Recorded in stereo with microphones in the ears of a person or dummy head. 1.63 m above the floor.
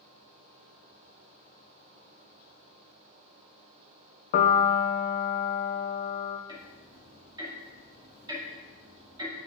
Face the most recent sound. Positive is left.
turn(degrees=-25)  # may be behind; listen again after turning